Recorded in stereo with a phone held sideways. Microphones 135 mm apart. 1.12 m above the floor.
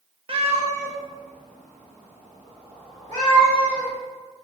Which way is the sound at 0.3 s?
45° right (ahead or behind).